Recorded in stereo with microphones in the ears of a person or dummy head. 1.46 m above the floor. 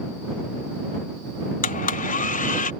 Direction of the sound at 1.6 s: 40° left (ahead or behind).